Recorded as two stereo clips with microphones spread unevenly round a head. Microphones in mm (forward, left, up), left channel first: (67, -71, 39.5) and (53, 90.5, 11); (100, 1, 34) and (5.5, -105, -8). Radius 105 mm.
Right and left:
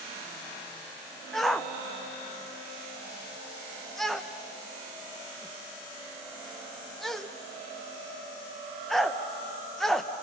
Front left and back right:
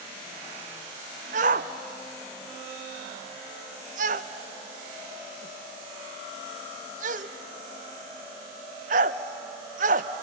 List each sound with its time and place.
1.3 s a shout: 175° right, 0.7 m